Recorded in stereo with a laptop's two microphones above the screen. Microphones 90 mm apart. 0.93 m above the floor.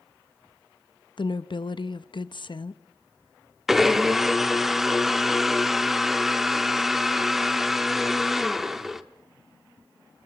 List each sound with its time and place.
1.2 s a woman speaking: 60° left (ahead or behind), 0.9 m
3.7 s a blender: 5° right (ahead or behind), 0.7 m